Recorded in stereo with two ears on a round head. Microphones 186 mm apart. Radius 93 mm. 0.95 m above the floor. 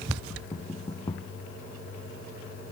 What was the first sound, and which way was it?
Knocking, 20° left (ahead or behind).